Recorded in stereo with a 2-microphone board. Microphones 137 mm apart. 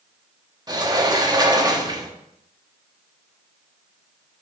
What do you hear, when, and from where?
0.7 s a sliding door: 30° right (ahead or behind), 1.0 m